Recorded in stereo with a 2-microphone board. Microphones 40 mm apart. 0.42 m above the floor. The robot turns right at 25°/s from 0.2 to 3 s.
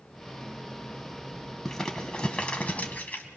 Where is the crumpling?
10° left (ahead or behind), 2.0 m; by 3.3 s 40° left (ahead or behind), 2.0 m.